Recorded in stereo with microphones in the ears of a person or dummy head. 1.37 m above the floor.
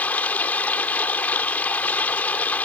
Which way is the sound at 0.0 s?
10° left (ahead or behind).